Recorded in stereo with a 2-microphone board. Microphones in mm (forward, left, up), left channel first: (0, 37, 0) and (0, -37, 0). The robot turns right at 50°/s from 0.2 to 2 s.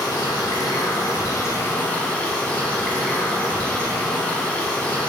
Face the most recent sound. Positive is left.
turn(degrees=165)